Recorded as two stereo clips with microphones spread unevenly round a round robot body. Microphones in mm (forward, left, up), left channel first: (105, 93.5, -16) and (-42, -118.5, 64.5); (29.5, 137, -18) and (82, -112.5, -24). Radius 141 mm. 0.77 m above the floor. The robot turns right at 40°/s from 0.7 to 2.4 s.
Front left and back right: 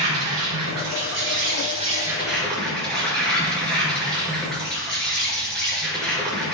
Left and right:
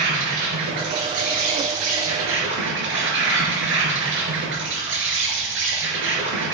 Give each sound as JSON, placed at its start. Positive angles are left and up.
{"t": 0.0, "sound": "an insect", "azimuth_deg": -105, "distance_m": 3.0}